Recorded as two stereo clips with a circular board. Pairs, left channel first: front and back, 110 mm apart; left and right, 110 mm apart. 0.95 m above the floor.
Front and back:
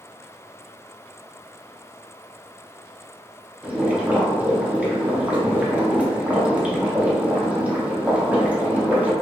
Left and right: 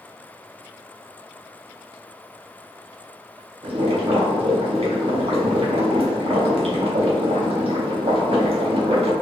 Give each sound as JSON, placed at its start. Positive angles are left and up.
{"t": 3.6, "sound": "boiling", "azimuth_deg": -105, "distance_m": 0.6}